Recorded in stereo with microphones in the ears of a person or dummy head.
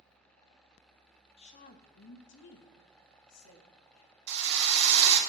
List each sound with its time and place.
1.4 s a woman speaking: 35° left (ahead or behind), 0.7 m; by 4.1 s 80° left, 1.7 m
4.3 s a drill: 45° right (ahead or behind), 2.5 m